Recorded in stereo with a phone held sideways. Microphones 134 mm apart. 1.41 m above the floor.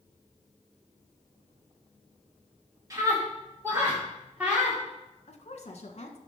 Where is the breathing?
I don't hear breathing.